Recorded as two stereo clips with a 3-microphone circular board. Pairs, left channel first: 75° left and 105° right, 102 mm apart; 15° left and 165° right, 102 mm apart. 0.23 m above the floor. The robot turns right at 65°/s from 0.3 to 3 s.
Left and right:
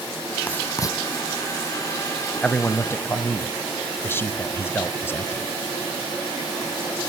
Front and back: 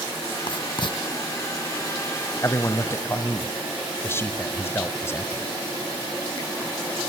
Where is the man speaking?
5° left, 1.0 m; by 5.5 s 40° left, 1.0 m.